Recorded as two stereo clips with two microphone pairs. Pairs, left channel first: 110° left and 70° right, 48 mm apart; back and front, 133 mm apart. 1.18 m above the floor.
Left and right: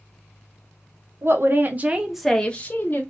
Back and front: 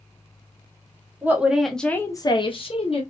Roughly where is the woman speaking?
Right.